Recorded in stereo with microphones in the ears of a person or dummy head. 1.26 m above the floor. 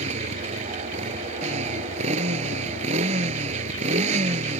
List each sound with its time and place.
0.0 s a motorcycle: 40° right (ahead or behind)